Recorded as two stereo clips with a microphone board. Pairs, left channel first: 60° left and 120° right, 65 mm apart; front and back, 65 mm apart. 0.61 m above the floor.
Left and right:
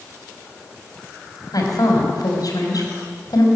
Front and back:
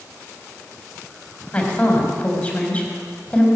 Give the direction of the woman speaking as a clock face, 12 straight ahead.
10 o'clock.